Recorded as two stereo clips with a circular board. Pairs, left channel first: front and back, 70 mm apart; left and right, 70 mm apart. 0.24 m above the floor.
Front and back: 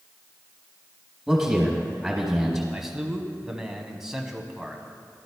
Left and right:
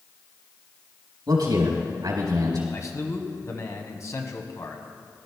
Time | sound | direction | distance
1.3 | a man speaking | 90° right | 4 m
2.7 | a man speaking | 100° left | 1.4 m